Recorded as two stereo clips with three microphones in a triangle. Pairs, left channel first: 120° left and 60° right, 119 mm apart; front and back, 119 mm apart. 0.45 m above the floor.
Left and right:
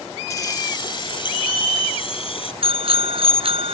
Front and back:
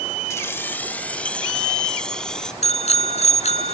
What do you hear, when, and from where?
0.3 s keys jangling: 60° left; by 2.5 s 85° left
2.6 s a bicycle bell: 25° right